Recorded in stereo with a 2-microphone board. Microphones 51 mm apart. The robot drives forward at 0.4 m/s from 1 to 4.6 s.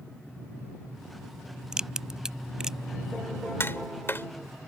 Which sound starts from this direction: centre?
A crack, at 1.7 s.